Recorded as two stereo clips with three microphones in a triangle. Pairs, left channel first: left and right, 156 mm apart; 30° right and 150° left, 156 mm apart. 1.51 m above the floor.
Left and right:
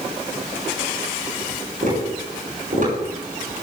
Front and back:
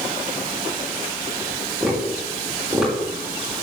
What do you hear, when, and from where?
1.8 s tapping: 120° right, 7 m